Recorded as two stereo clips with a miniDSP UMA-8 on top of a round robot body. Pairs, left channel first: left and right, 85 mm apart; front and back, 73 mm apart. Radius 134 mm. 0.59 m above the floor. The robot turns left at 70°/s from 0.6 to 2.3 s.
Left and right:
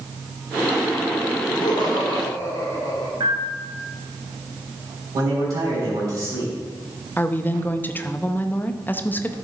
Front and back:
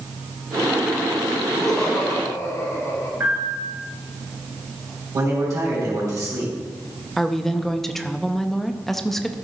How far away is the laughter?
About 3.5 m.